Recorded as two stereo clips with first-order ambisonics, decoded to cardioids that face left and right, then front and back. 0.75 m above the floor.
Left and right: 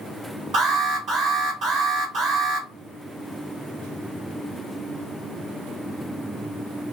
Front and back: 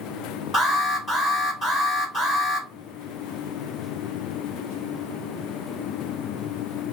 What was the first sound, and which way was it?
An alarm, 70° right.